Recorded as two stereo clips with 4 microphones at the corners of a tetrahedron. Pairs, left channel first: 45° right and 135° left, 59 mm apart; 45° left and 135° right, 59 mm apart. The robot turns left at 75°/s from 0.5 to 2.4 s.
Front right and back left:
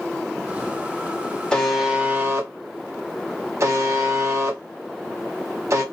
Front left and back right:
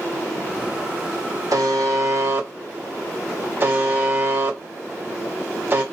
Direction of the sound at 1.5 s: 120° right.